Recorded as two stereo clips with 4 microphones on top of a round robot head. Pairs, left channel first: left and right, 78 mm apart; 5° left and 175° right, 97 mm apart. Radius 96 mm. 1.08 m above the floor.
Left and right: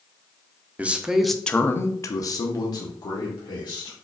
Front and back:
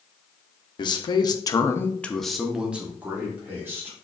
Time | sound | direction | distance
0.8 | a man speaking | 20° right | 0.7 m